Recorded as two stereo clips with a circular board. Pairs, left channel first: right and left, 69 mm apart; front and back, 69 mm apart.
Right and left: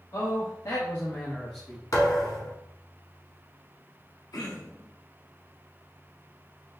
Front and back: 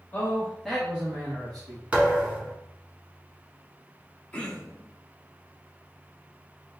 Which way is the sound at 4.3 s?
70° right.